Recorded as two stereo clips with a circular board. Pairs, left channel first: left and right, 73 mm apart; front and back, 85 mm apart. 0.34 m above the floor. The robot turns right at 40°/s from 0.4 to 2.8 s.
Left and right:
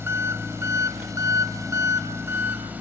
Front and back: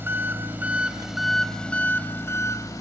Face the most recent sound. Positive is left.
turn(degrees=-30)